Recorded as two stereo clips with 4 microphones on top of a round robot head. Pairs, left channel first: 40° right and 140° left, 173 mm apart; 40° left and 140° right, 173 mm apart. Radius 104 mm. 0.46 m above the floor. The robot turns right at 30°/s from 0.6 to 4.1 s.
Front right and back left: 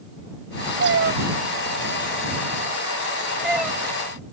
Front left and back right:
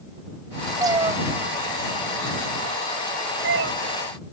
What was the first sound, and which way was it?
A cat meowing, 150° left.